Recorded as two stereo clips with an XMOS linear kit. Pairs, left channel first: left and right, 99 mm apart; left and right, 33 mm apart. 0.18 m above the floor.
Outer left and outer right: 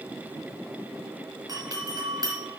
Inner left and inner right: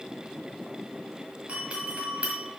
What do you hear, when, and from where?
1.5 s a doorbell: 35° right (ahead or behind), 2.5 m